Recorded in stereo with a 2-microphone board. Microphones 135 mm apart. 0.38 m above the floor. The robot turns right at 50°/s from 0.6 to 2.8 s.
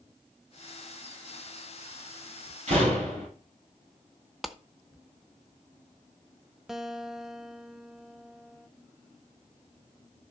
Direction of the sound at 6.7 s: 5° right (ahead or behind).